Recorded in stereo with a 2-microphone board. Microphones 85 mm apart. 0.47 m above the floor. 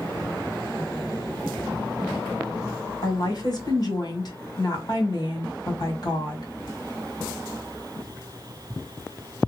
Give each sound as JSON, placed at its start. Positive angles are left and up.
{"t": 3.0, "sound": "a woman speaking", "side_deg": 50, "distance_m": 1.8}